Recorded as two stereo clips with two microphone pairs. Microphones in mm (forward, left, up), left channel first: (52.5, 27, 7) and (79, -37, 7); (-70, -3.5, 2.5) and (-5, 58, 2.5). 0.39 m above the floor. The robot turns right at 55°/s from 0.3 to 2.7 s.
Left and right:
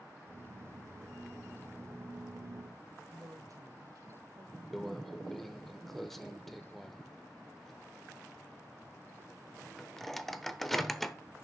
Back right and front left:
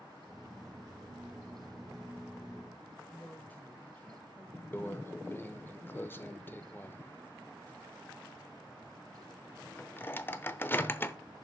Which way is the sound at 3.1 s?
75° right.